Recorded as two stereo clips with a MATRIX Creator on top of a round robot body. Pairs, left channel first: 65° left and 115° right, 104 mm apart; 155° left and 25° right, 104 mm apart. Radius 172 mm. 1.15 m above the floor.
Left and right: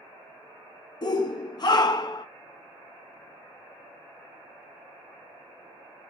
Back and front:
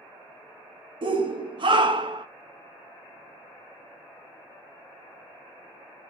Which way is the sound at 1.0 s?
20° left.